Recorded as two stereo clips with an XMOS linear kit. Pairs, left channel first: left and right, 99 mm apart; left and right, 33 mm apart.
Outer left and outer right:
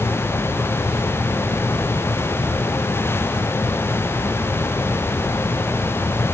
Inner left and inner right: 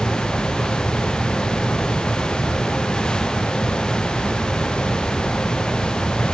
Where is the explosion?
No explosion in this recording.